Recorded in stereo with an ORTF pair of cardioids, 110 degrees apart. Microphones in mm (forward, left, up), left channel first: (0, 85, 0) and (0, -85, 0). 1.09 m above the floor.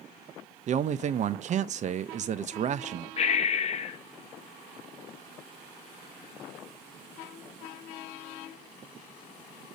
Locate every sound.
0.7 s a man speaking: 45° right, 0.7 m
3.2 s breathing: 40° left, 1.1 m